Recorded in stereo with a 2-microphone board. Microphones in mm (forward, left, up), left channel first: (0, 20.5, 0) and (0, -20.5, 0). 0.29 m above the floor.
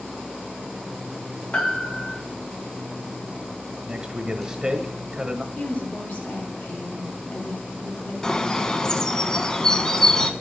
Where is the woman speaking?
60° left (ahead or behind), 2.5 m.